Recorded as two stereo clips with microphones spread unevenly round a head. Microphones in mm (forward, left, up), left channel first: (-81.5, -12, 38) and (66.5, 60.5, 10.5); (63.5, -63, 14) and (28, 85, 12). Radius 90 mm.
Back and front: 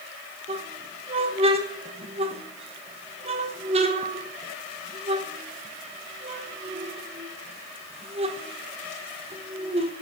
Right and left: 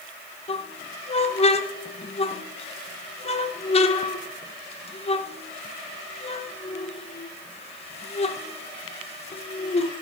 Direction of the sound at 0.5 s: 35° right.